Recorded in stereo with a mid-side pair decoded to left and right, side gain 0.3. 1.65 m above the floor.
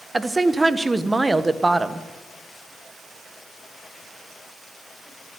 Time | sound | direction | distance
0.1 | a woman speaking | 30° right | 1.2 m